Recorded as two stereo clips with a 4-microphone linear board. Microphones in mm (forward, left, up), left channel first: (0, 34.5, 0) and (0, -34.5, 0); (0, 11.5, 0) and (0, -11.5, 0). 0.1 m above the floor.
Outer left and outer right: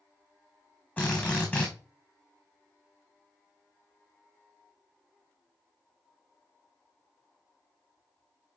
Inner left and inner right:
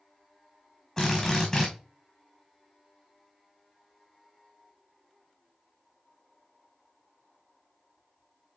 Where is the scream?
I don't hear a scream.